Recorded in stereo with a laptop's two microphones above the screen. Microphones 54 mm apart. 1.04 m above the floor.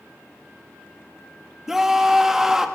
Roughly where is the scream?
Centre.